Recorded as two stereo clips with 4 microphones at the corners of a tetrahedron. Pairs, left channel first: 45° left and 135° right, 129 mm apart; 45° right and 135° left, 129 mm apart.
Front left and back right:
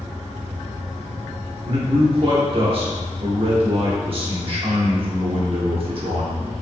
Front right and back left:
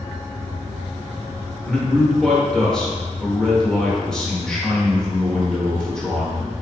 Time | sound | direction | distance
1.6 | a man speaking | 125° right | 1.0 m